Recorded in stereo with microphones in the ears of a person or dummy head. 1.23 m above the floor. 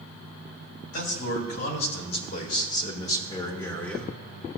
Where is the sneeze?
I don't hear a sneeze.